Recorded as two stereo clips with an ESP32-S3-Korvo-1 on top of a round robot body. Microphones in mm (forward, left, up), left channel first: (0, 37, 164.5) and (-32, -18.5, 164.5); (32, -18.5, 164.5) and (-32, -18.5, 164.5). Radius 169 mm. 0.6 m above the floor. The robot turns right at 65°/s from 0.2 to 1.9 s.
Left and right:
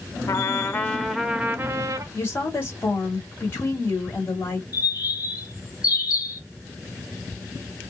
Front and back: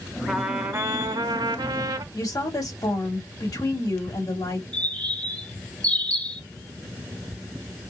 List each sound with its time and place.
0.3 s a trumpet: 90° left, 0.6 m; by 2.0 s 165° right, 0.6 m
2.1 s a woman speaking: 15° left, 2.5 m
4.7 s a bird: 70° left, 1.6 m